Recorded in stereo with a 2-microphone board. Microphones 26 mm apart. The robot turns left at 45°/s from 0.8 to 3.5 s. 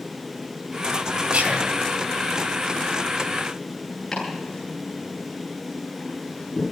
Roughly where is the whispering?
Right.